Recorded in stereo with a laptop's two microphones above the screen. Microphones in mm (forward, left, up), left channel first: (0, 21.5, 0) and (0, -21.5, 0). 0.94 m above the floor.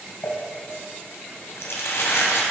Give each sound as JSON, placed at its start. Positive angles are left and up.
{"t": 0.2, "sound": "crumpling", "side_deg": 70, "distance_m": 2.0}